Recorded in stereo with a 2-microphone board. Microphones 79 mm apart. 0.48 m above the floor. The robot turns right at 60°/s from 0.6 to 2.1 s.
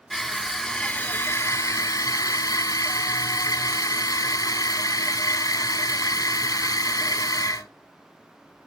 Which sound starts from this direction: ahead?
Crushing, at 0.1 s.